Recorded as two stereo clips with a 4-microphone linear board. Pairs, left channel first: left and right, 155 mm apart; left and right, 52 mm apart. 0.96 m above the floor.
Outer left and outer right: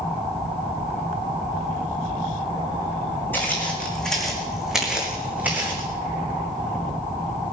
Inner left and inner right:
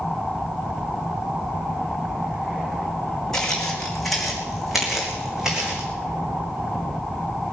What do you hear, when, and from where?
3.3 s footsteps: 10° left (ahead or behind), 3 m; by 5.9 s 15° right (ahead or behind), 3.5 m